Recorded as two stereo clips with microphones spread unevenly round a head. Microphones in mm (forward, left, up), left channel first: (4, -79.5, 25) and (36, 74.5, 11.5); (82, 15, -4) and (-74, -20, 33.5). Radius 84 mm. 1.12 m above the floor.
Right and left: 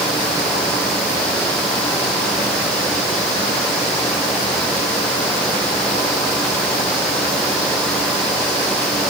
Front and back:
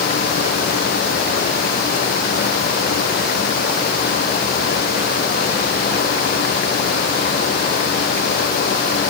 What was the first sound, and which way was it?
Only background noise.